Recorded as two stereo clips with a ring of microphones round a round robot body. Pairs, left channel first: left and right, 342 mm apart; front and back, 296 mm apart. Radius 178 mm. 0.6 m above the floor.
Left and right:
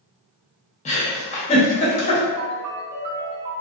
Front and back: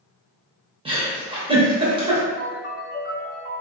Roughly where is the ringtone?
Ahead right.